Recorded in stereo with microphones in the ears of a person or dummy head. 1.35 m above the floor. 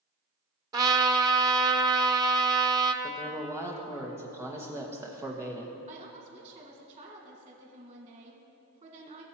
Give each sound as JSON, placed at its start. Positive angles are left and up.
{"t": 0.7, "sound": "a trumpet", "side_deg": -10, "distance_m": 0.5}
{"t": 3.0, "sound": "a man speaking", "side_deg": -25, "distance_m": 1.1}
{"t": 5.9, "sound": "a woman speaking", "side_deg": -30, "distance_m": 1.1}